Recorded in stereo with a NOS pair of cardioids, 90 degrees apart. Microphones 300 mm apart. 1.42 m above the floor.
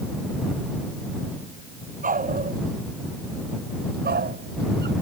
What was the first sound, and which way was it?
A dog barking, 25° right.